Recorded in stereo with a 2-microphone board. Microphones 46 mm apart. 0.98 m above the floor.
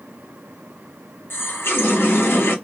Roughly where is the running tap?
Left.